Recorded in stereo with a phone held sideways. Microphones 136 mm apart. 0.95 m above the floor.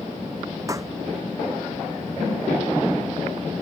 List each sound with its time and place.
0.7 s a pop: 25° right (ahead or behind)